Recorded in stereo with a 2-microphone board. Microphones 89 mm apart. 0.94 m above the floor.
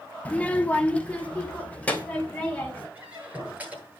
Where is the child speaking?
15° left (ahead or behind), 0.7 m.